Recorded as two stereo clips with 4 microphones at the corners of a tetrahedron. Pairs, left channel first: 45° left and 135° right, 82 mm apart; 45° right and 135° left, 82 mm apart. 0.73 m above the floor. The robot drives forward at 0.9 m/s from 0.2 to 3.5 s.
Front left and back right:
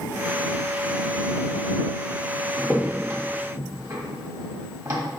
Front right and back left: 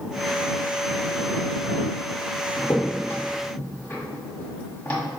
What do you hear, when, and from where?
2.6 s a crack: 60° right, 1.5 m; by 5.0 s 105° right, 1.4 m